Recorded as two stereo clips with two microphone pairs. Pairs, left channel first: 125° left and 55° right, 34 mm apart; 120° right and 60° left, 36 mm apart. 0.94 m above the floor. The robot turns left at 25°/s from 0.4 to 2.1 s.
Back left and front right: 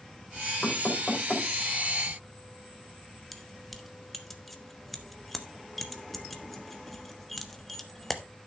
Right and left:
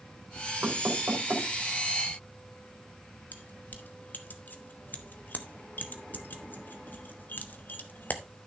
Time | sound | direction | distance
0.6 | knocking | 80° left | 2.5 m
3.3 | keys jangling | 150° right | 1.0 m